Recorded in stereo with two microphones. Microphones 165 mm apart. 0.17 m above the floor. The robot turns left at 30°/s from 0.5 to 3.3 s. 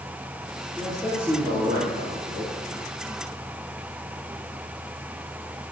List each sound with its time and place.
0.8 s a man speaking: 5° left, 3 m; by 2.5 s 50° right, 3 m